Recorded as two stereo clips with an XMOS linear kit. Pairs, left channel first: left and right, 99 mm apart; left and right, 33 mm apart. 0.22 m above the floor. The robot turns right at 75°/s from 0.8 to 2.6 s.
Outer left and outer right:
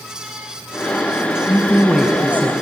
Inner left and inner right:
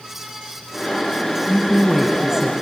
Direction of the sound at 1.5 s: 135° left.